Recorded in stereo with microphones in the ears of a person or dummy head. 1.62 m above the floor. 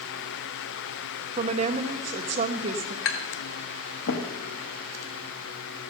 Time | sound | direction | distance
1.4 | a woman speaking | 40° right (ahead or behind) | 1.1 m
3.0 | tapping | 70° left (ahead or behind) | 1.5 m